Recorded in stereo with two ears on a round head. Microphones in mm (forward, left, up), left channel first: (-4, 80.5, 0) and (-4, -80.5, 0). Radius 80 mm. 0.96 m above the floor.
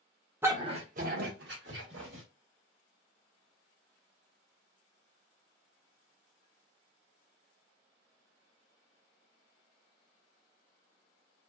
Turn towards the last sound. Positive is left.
turn(degrees=-75)  # may be behind; listen again after turning